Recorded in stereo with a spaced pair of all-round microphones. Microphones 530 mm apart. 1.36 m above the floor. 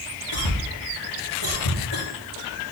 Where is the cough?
70° left (ahead or behind), 1.9 m.